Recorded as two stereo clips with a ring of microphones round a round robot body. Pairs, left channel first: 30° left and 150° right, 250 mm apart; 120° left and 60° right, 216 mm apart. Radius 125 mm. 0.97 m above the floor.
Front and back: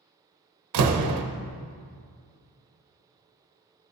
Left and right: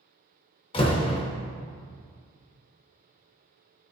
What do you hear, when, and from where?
0.7 s a door slam: 170° right, 0.7 m